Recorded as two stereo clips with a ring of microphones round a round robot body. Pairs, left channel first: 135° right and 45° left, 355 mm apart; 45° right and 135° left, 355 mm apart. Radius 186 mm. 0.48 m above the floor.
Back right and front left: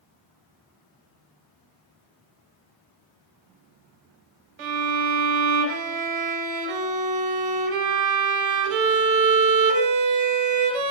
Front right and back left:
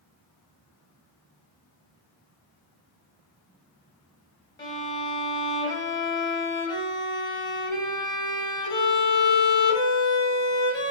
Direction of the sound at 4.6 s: 35° left.